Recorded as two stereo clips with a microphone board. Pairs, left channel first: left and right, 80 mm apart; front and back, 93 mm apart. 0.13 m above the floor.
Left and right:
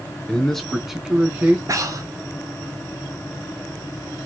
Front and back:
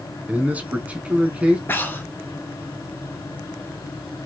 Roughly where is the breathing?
Ahead right.